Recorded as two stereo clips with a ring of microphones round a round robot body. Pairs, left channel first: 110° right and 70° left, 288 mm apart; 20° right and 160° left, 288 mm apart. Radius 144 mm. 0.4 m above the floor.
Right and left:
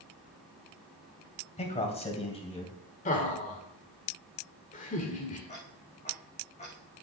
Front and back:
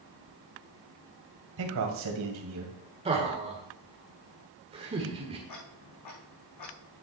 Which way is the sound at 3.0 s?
150° right.